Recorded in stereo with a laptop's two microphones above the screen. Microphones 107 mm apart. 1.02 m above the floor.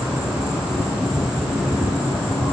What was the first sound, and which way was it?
An insect, 5° right (ahead or behind).